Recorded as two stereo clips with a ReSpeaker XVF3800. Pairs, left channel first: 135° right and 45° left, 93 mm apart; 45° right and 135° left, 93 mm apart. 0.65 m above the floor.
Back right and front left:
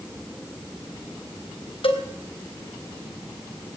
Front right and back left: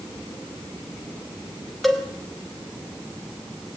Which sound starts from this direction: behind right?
A cowbell, at 1.8 s.